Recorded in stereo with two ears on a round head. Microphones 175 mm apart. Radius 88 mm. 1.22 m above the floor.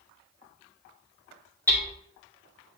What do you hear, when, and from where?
1.7 s hammering: 10° left (ahead or behind), 2.5 m